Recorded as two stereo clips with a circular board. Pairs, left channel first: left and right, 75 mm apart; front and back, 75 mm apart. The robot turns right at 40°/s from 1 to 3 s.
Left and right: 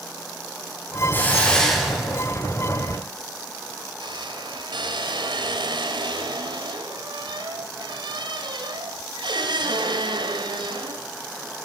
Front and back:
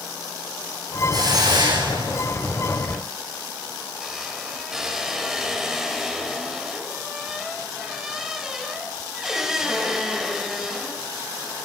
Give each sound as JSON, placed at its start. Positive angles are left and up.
{"t": 1.1, "sound": "a hiss", "azimuth_deg": 150, "distance_m": 9.5}
{"t": 2.8, "sound": "a squeak", "azimuth_deg": -100, "distance_m": 3.0}